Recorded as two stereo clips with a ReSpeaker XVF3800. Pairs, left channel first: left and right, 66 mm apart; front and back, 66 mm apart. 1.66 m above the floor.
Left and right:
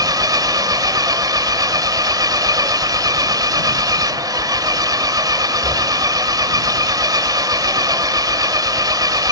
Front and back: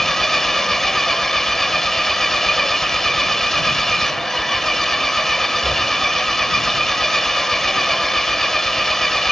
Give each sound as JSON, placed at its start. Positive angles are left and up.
{"t": 0.0, "sound": "an engine running", "azimuth_deg": -85}